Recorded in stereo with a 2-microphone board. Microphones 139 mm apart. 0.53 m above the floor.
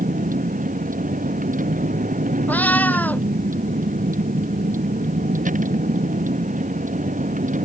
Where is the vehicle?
75° right (ahead or behind); by 7.7 s 70° right (ahead or behind).